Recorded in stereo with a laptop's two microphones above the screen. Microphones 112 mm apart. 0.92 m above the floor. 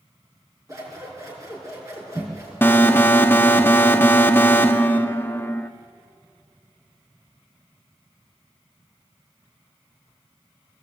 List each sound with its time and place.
0.7 s scissors: 30° right (ahead or behind), 4.5 m
2.6 s an alarm: 20° left (ahead or behind), 0.8 m